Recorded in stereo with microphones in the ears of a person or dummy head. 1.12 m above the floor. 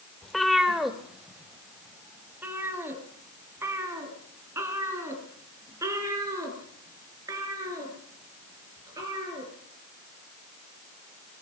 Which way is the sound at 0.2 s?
Centre (ahead or behind).